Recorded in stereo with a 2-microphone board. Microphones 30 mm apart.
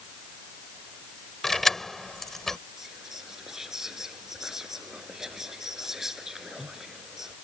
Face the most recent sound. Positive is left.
turn(degrees=-15)  # may be behind; listen again after turning